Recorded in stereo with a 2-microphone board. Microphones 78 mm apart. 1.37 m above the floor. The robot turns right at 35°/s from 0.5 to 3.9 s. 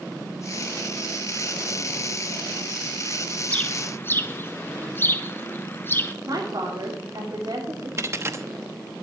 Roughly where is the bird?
Centre.